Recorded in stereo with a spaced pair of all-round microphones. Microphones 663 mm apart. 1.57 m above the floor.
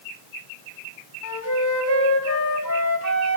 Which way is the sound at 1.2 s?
25° left (ahead or behind).